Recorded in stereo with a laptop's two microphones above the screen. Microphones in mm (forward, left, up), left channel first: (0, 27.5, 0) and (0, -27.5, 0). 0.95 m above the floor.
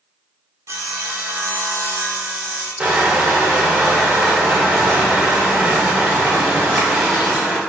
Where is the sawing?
55° right (ahead or behind), 0.5 m.